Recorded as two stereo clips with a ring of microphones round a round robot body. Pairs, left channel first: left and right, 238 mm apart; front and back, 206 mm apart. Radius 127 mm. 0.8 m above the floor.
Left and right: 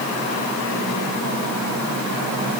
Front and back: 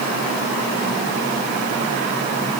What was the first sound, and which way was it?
Only background noise.